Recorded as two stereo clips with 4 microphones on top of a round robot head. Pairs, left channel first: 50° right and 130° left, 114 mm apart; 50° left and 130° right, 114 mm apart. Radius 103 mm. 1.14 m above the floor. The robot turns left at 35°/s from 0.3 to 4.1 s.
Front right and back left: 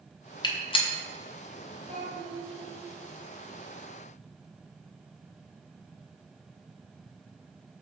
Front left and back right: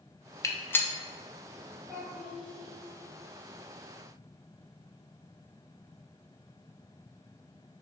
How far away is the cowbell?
No cowbell in this recording.